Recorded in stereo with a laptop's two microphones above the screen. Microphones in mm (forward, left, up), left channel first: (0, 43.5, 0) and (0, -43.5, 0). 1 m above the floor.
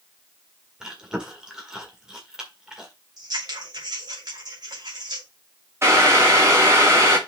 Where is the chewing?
10° right (ahead or behind), 1.6 m.